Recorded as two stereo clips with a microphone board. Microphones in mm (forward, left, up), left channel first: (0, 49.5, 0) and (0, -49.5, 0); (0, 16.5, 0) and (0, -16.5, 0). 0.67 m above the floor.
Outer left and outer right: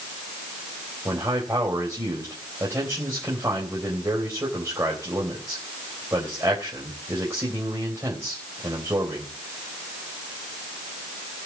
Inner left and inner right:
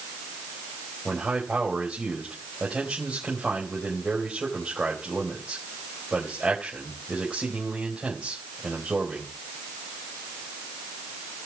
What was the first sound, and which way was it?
A man speaking, 30° right (ahead or behind).